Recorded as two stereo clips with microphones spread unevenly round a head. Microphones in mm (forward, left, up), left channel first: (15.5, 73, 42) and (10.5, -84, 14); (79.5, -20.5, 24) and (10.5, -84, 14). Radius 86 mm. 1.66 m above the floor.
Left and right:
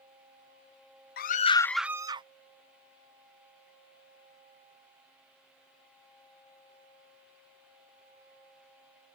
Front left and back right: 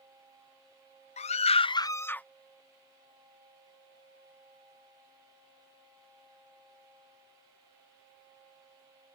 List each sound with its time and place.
1.2 s a scream: 60° left; by 2.3 s 35° right